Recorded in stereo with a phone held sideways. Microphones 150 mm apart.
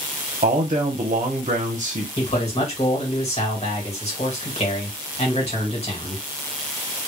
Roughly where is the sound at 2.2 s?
Left.